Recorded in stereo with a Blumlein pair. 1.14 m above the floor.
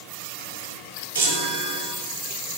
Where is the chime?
65° right, 3 m.